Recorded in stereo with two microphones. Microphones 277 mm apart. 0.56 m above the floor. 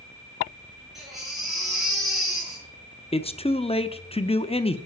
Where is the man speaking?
20° left (ahead or behind), 0.7 m.